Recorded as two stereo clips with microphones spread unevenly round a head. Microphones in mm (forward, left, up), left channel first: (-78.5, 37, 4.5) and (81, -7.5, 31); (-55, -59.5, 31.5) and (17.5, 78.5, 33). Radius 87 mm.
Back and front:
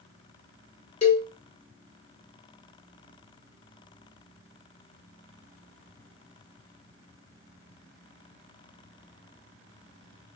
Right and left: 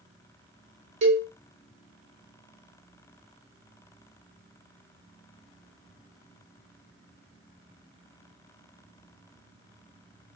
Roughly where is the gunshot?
No gunshot in this recording.